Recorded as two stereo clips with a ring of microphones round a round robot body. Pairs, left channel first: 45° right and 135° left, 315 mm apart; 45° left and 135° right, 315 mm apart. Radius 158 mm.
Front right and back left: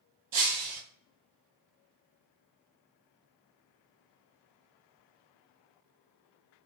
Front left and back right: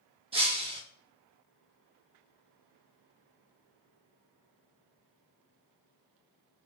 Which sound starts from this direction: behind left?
Breaking glass, at 0.3 s.